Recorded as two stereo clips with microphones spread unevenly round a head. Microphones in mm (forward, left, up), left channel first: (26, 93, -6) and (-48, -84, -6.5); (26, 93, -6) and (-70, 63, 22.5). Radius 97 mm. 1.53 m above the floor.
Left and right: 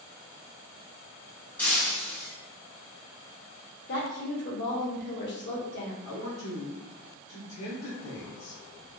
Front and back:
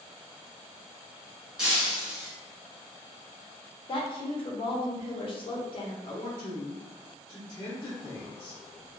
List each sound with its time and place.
1.6 s breaking glass: 145° left, 1.0 m
3.9 s a woman speaking: 55° left, 0.7 m
6.0 s a man speaking: 65° left, 0.7 m